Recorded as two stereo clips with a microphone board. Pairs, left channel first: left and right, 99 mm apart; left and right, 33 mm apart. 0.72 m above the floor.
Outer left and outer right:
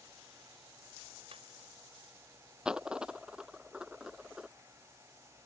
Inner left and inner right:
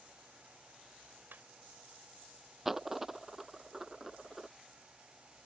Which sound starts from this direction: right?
Laughter, at 1.3 s.